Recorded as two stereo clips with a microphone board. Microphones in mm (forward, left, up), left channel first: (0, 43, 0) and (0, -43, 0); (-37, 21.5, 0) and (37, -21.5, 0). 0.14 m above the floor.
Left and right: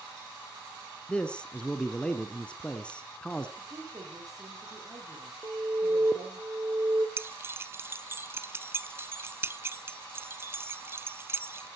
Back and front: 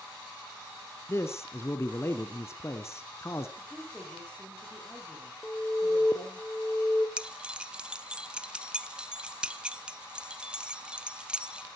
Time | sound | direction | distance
1.1 | a man speaking | 160° left | 1.2 m
3.6 | a woman speaking | 135° right | 7.5 m
5.4 | an alarm | 130° right | 2.5 m
7.2 | keys jangling | 100° right | 0.8 m